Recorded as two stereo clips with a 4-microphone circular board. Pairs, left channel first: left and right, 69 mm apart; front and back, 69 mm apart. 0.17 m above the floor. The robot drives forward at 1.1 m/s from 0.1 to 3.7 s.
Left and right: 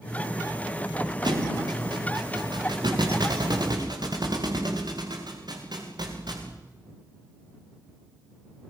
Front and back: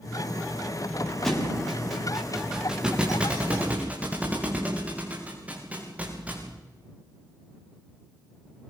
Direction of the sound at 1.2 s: 85° right.